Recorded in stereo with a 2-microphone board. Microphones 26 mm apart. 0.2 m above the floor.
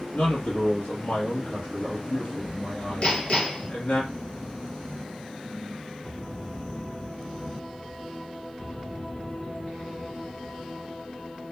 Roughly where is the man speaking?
Left.